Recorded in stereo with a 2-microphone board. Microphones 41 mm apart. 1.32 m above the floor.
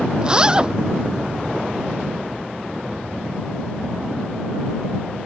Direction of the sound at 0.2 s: 25° right (ahead or behind).